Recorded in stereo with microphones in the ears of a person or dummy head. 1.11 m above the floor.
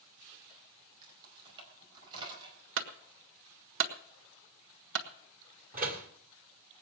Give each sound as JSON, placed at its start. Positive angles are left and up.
{"t": 1.0, "sound": "keys jangling", "side_deg": -25, "distance_m": 4.0}
{"t": 2.8, "sound": "a clunk", "side_deg": -65, "distance_m": 1.5}
{"t": 5.7, "sound": "a door slam", "side_deg": -40, "distance_m": 1.8}